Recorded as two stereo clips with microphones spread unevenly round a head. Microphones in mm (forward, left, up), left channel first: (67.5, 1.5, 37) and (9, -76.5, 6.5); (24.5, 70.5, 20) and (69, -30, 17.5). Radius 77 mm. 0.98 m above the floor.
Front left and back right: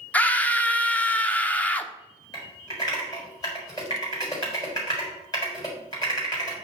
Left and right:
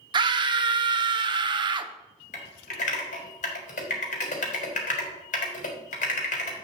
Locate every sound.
0.1 s a scream: 35° right, 0.7 m
2.3 s typing on a keyboard: 120° left, 1.6 m